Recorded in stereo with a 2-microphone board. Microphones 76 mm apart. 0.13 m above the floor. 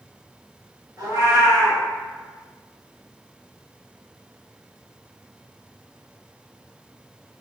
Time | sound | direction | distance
1.0 | a cat meowing | 50° right (ahead or behind) | 1.1 m